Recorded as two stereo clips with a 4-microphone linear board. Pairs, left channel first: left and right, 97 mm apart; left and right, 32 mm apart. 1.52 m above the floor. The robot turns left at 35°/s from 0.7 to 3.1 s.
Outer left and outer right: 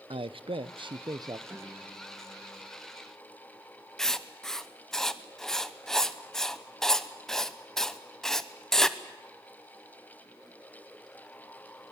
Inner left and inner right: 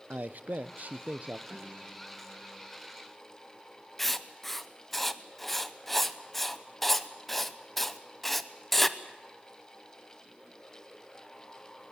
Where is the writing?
5° left (ahead or behind), 0.8 m.